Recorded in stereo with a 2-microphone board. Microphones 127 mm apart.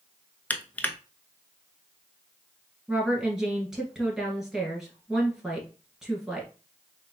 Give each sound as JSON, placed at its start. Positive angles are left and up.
{"t": 0.5, "sound": "crushing", "side_deg": 10, "distance_m": 0.6}
{"t": 2.9, "sound": "a woman speaking", "side_deg": -5, "distance_m": 1.7}